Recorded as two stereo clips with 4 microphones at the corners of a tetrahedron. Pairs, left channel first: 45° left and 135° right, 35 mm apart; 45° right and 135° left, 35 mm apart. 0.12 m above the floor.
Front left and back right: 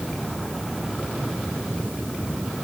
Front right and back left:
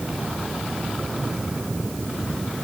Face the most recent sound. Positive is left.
No sound to turn to.